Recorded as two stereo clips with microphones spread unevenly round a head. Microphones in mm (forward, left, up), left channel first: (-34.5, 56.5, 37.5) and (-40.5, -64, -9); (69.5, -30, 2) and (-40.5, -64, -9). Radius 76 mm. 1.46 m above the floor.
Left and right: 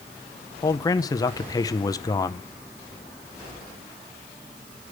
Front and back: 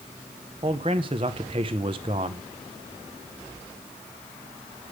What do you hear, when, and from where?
0.6 s a man speaking: 140° left, 0.7 m